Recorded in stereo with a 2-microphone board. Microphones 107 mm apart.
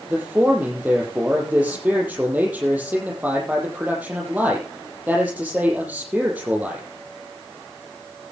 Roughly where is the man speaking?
Centre.